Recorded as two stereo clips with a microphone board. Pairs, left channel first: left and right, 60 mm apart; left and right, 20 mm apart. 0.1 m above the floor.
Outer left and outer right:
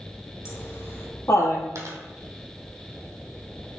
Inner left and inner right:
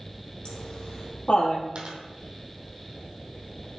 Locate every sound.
0.5 s laughter: 50° left (ahead or behind), 3 m; by 1.7 s 60° left (ahead or behind), 2.5 m
1.8 s a dropped coin: 55° right (ahead or behind), 1.8 m